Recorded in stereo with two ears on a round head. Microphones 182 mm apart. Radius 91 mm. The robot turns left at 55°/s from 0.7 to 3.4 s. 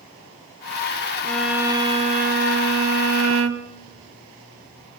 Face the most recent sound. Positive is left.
turn(degrees=-110)